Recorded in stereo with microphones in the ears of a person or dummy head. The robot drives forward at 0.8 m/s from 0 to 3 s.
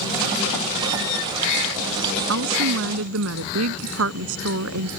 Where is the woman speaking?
75° right (ahead or behind).